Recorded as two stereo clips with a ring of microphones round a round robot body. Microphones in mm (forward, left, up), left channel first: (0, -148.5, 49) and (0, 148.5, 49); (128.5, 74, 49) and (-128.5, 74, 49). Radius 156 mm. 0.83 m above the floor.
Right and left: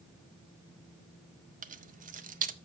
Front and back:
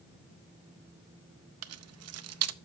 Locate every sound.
1.6 s keys jangling: 155° left, 0.7 m